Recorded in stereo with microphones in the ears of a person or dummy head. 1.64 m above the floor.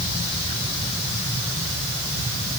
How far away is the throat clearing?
I don't hear throat clearing.